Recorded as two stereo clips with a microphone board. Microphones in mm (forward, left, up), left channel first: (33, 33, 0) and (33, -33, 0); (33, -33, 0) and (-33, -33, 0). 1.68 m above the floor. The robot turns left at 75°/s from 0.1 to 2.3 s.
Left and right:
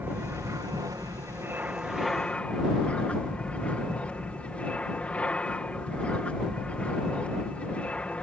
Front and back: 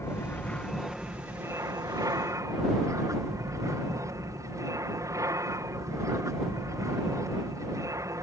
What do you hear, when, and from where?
0.0 s an aircraft: 35° right; by 8.2 s 160° left